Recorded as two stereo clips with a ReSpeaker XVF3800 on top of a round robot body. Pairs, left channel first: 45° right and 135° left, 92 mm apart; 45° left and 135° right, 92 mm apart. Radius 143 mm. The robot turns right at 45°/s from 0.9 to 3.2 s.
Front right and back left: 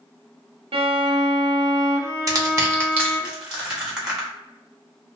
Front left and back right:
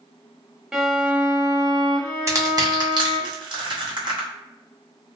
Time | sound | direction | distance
0.7 | a violin | 140° left | 0.7 m
2.3 | crushing | straight behind | 1.9 m